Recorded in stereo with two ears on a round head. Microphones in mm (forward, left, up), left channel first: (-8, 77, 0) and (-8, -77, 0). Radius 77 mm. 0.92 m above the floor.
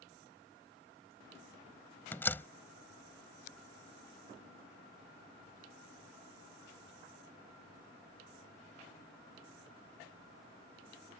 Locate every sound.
2.1 s a door slam: 10° left (ahead or behind)